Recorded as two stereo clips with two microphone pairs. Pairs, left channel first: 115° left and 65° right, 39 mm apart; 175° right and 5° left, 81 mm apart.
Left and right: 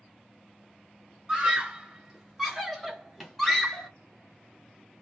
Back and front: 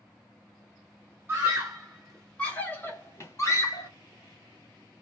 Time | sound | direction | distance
1.3 | a scream | 10° right | 1.1 m